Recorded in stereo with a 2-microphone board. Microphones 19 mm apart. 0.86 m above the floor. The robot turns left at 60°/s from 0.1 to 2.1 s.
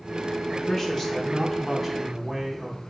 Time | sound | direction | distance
0.5 | a man speaking | 75° left | 0.8 m